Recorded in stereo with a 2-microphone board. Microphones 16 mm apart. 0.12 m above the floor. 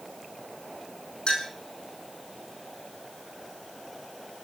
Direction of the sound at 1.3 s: 65° left (ahead or behind).